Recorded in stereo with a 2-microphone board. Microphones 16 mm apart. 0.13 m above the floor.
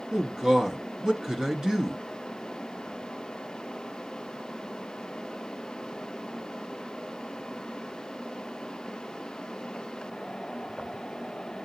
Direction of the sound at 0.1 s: 40° right (ahead or behind).